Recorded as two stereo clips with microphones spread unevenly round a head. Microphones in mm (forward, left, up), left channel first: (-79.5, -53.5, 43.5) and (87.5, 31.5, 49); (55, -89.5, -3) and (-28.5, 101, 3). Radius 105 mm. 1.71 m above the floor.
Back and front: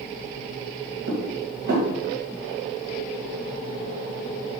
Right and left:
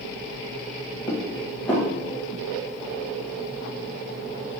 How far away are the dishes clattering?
About 1.1 m.